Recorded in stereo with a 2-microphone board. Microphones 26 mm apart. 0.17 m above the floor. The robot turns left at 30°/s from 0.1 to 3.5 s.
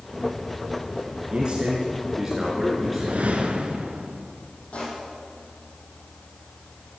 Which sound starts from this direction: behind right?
A man speaking, at 1.3 s.